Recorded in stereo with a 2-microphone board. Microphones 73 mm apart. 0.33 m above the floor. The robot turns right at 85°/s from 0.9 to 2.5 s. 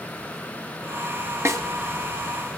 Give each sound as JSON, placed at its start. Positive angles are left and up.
{"t": 1.4, "sound": "a snare drum", "side_deg": -40, "distance_m": 1.1}